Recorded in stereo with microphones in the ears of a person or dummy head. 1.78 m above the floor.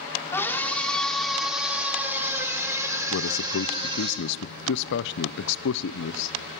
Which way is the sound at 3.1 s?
65° left (ahead or behind).